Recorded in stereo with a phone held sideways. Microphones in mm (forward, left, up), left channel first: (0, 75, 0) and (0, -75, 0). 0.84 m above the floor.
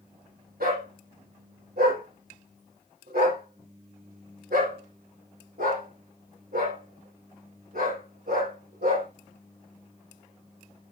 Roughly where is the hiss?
No hiss in this recording.